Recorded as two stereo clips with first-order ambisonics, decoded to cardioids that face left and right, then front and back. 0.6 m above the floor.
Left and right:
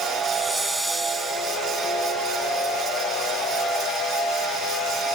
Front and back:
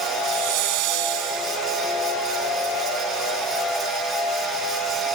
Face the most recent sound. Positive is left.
turn(degrees=-175)